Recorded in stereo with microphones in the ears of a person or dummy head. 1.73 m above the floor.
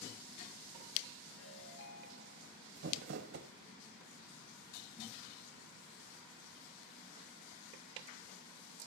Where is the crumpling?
60° right (ahead or behind), 1.4 m.